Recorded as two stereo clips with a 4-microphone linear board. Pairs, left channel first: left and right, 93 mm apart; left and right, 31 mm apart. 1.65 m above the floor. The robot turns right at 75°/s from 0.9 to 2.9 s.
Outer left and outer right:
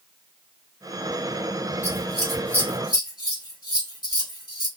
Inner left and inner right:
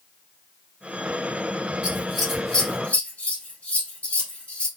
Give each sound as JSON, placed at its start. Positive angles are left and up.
{"t": 1.8, "sound": "scissors", "side_deg": -30, "distance_m": 2.5}